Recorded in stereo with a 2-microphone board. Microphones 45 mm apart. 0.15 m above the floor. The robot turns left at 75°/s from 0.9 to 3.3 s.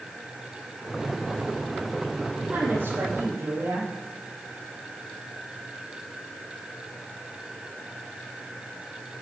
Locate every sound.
2.5 s a woman speaking: 55° right, 4 m; by 3.9 s 115° right, 4 m